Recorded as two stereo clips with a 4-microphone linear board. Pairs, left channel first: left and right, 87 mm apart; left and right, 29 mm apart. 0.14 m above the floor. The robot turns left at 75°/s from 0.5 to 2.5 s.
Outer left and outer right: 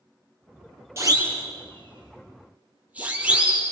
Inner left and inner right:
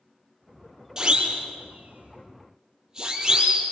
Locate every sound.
1.0 s a siren: 30° right (ahead or behind), 4.5 m; by 3.7 s 15° right (ahead or behind), 5 m